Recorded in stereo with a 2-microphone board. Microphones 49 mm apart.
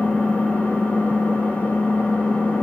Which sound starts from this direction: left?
An engine running, at 0.0 s.